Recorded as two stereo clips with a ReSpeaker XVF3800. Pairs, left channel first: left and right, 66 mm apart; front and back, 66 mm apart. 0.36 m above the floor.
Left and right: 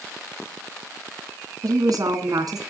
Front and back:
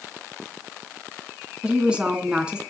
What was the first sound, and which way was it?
A woman speaking, 105° right.